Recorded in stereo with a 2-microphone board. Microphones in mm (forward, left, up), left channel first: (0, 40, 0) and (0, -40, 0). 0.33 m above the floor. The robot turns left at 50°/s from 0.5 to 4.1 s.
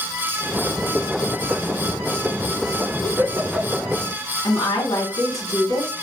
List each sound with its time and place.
3.0 s a giggle: 50° right (ahead or behind), 1.0 m; by 3.9 s centre (ahead or behind), 1.0 m
4.4 s a woman speaking: 55° left (ahead or behind), 2.5 m